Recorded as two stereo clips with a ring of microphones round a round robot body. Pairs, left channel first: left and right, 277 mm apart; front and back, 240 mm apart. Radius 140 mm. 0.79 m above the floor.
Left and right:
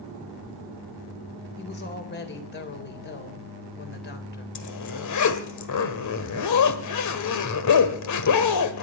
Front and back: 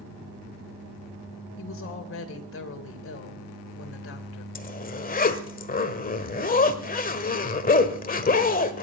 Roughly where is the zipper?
Ahead left.